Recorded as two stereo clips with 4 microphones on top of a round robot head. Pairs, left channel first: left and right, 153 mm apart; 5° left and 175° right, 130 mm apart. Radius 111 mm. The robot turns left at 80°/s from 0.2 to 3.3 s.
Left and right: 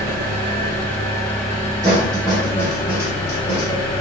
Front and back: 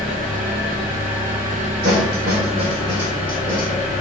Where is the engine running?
80° right, 1.4 m; by 4.0 s 35° left, 1.4 m.